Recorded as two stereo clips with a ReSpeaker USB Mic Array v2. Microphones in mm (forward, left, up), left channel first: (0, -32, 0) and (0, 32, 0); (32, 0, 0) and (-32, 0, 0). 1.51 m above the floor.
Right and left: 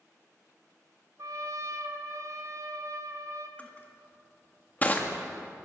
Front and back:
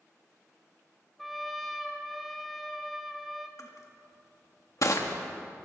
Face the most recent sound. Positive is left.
turn(degrees=-30)